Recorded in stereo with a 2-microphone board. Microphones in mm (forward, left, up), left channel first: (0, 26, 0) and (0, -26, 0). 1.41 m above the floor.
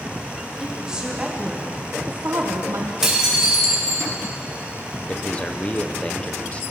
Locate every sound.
0.6 s a woman speaking: 10° right (ahead or behind), 2.5 m; by 2.9 s 70° right (ahead or behind), 1.1 m
3.0 s dishes clattering: 10° right (ahead or behind), 4 m
5.1 s a man speaking: 25° left (ahead or behind), 1.0 m